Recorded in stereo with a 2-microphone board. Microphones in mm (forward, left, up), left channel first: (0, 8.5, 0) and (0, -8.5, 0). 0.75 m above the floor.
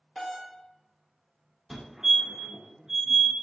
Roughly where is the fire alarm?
Right.